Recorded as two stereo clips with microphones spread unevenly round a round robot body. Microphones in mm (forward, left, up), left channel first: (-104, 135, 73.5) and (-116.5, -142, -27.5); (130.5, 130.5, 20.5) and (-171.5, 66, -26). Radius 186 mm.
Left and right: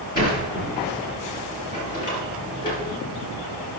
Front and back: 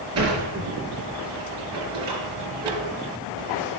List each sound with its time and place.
0.1 s a sliding door: 150° left, 4 m